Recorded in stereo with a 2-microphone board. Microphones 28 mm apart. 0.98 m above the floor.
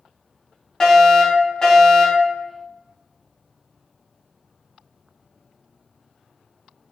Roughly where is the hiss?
I don't hear a hiss.